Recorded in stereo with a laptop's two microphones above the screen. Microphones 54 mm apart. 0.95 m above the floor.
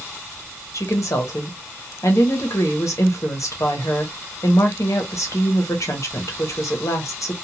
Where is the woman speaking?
65° left (ahead or behind), 0.9 m.